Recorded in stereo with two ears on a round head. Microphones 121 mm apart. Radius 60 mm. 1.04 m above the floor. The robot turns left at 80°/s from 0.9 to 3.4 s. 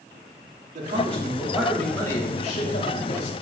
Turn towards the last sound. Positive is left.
turn(degrees=45)